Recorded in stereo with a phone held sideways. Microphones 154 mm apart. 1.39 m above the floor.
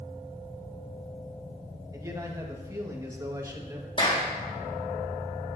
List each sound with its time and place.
1.9 s a man speaking: 25° right (ahead or behind), 2.0 m
4.0 s a clap: 35° left (ahead or behind), 2.5 m